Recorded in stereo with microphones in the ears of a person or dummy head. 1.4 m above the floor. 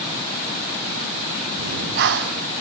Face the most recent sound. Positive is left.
turn(degrees=-50)  # may be behind; listen again after turning